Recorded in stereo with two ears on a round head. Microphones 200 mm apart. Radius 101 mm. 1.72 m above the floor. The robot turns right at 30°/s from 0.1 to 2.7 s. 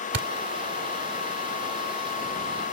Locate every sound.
0.1 s a thud: 60° right (ahead or behind)